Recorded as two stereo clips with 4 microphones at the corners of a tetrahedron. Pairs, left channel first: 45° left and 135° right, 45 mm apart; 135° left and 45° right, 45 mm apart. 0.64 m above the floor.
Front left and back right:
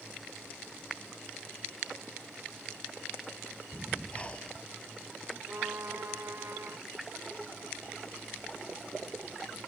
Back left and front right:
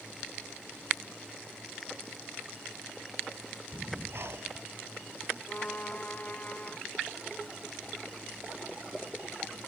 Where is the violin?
165° right.